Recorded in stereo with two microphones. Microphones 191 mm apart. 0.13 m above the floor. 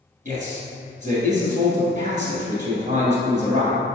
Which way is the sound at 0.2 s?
40° right (ahead or behind).